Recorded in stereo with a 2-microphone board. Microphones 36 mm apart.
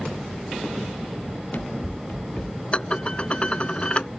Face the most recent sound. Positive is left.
turn(degrees=35)  # may be behind; listen again after turning